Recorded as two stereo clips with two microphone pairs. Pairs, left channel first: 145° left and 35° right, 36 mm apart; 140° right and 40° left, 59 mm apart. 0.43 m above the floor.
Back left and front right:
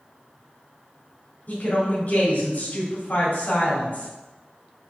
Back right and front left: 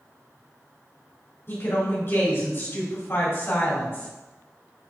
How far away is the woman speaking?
About 2.5 m.